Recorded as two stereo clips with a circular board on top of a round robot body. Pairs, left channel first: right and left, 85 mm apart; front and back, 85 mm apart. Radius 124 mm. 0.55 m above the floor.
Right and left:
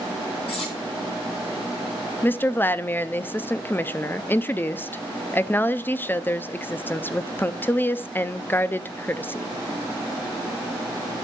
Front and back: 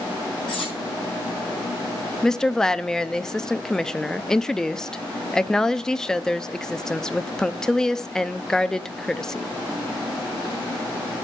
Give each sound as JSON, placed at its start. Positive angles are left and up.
{"t": 0.5, "sound": "cutlery clinking", "azimuth_deg": -80, "distance_m": 7.0}
{"t": 2.2, "sound": "a woman speaking", "azimuth_deg": -70, "distance_m": 0.6}